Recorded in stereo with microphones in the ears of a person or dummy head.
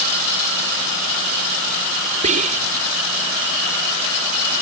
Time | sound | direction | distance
2.2 | whispering | 40° right (ahead or behind) | ?